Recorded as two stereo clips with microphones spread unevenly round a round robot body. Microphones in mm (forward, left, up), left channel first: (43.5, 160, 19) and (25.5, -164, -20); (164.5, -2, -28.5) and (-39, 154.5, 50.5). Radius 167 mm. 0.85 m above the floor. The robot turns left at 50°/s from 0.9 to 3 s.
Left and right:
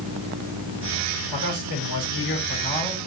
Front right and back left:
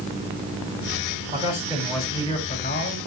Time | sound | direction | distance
1.3 | a man speaking | 85° left | 6.5 m